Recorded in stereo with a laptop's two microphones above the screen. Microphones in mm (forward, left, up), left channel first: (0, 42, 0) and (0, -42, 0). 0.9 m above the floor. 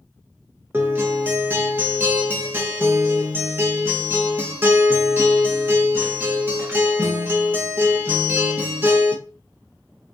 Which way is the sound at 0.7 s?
25° right (ahead or behind).